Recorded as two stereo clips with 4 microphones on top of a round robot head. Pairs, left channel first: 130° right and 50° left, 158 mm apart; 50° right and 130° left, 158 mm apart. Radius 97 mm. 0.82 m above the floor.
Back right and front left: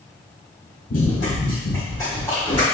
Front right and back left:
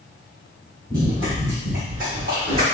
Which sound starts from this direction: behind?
Running footsteps, at 0.9 s.